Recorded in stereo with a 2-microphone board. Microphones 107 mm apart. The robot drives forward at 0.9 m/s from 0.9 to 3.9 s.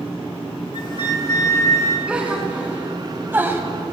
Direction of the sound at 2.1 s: 10° right (ahead or behind).